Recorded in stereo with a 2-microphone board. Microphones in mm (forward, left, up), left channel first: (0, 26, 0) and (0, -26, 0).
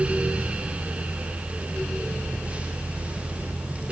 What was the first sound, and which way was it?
Only background noise.